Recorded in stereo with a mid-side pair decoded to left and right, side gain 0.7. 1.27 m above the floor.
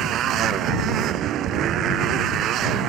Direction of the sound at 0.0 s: 50° right.